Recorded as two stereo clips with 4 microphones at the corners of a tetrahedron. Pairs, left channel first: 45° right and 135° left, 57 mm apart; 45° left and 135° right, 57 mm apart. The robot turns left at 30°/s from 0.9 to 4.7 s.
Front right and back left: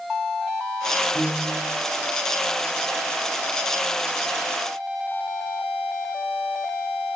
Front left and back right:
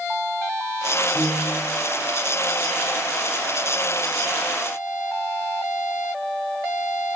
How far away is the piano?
About 1.7 m.